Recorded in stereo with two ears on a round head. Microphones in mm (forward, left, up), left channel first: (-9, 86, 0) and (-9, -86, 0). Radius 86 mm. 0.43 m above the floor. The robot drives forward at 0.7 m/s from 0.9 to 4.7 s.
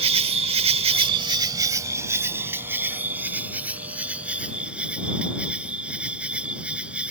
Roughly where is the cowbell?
I don't hear a cowbell.